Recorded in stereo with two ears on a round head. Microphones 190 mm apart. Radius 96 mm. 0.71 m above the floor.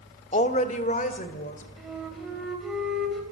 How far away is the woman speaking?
About 1.4 m.